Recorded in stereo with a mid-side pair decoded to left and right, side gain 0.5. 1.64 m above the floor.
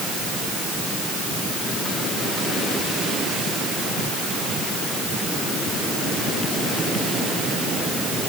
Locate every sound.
Only background noise.